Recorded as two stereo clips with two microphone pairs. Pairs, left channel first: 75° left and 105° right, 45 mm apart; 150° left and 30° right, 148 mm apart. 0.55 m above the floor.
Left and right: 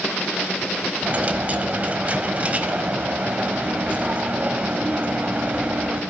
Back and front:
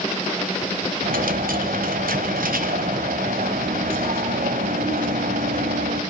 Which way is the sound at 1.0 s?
50° right.